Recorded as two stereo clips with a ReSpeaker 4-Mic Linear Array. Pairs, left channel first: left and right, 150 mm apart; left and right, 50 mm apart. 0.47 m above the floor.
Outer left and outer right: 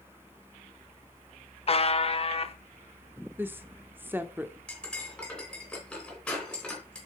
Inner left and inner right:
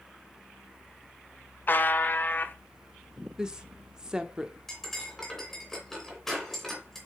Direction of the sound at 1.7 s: 40° left (ahead or behind).